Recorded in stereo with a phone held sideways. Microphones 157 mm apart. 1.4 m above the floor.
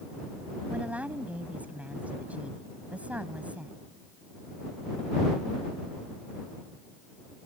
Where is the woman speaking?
10° right (ahead or behind).